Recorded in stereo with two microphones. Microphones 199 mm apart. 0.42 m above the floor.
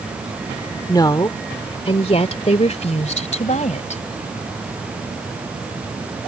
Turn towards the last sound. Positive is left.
turn(degrees=40)  # may be behind; listen again after turning